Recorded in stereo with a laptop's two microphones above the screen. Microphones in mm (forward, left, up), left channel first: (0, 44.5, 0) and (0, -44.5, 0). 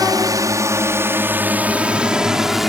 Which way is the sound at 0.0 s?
50° right (ahead or behind).